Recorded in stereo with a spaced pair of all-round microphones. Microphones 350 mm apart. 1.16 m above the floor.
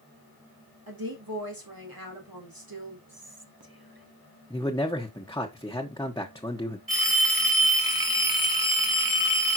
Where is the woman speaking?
75° right (ahead or behind), 3.5 m.